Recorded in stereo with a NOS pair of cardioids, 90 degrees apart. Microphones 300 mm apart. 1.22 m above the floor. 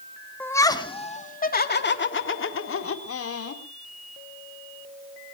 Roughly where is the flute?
No flute in this recording.